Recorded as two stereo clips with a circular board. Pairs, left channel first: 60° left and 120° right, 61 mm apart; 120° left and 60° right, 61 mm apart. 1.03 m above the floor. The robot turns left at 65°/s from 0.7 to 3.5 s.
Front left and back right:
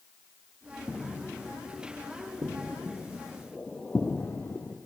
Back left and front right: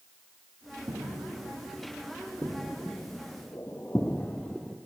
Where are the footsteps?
25° right, 4 m; by 4.8 s 50° left, 1.4 m.